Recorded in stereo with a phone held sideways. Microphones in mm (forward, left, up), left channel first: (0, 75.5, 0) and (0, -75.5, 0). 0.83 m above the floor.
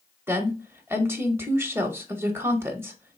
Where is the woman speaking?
15° right (ahead or behind), 0.7 m.